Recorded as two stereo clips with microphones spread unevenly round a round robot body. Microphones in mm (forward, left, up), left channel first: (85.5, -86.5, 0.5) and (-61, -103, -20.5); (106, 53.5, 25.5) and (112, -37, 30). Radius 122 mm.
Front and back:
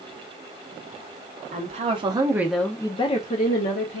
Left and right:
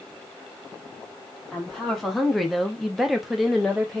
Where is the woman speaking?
Straight behind, 0.8 m; by 4.0 s 5° left, 0.9 m.